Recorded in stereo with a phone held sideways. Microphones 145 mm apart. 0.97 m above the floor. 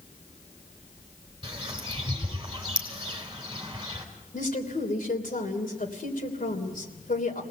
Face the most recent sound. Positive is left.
turn(degrees=70)  # may be behind; listen again after turning